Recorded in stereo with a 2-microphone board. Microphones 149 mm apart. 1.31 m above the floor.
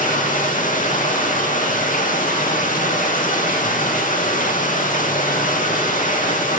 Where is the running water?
65° left (ahead or behind), 1.8 m.